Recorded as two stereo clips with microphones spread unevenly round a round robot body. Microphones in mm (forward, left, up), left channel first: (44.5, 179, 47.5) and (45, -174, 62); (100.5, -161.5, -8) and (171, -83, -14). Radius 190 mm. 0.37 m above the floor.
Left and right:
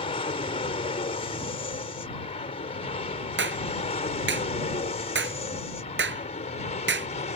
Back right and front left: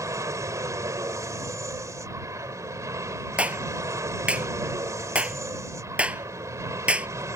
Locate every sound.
0.0 s an aircraft: 35° left; by 7.4 s 50° left
3.4 s a clap: 30° right